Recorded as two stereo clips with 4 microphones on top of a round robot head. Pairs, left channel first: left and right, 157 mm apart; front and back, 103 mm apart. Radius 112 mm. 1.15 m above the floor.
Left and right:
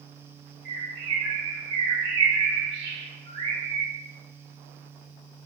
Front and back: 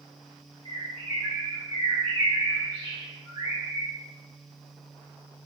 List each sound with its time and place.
0.7 s a bird: 60° right, 0.8 m